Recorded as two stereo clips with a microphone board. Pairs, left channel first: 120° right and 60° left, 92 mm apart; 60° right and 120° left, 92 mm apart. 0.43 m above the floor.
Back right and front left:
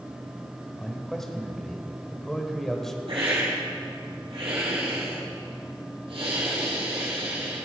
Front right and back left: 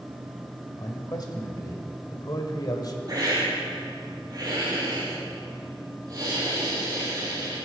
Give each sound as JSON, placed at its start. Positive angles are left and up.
{"t": 0.8, "sound": "a man speaking", "azimuth_deg": -35, "distance_m": 2.0}
{"t": 3.1, "sound": "a hiss", "azimuth_deg": 75, "distance_m": 5.0}